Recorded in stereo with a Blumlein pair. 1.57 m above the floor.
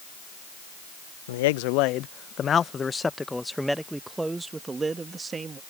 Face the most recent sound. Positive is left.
turn(degrees=-20)